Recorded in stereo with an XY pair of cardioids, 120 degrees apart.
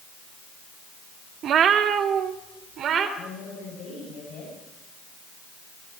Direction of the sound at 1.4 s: 60° right.